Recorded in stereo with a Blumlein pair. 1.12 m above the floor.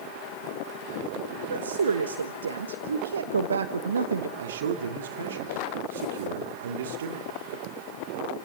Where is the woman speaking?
70° right, 1.2 m.